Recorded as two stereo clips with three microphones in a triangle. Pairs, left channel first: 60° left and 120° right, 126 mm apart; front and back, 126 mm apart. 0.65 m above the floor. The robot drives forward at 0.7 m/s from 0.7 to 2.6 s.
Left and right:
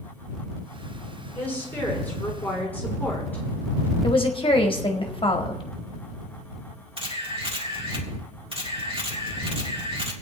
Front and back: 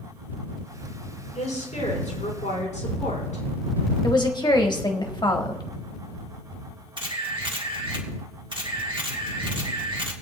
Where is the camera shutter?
145° right, 2.0 m.